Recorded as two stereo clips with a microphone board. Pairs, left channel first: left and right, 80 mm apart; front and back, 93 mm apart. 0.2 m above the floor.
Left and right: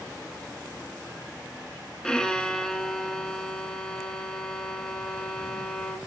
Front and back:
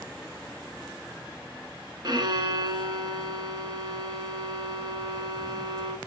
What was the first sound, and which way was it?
A violin, 170° left.